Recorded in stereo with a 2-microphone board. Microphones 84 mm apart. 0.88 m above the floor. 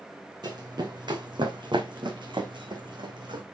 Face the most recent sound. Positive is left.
turn(degrees=-65)  # may be behind; listen again after turning